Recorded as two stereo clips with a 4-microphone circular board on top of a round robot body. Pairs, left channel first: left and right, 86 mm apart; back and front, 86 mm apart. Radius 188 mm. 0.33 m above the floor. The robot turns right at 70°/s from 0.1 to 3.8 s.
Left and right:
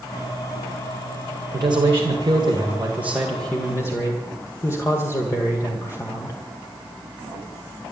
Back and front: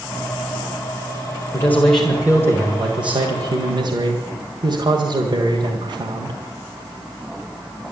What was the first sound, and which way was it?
A man speaking, 125° right.